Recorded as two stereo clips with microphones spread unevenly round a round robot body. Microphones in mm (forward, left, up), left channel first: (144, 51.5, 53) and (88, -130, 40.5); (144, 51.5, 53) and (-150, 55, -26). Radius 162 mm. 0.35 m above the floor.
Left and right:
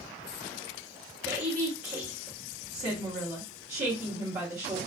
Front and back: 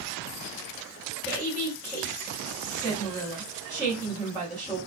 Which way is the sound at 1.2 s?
115° right.